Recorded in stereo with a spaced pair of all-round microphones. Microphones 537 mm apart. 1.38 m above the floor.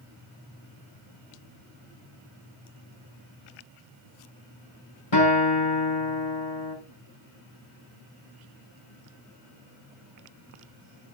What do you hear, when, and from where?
5.1 s a guitar: 55° left (ahead or behind), 4 m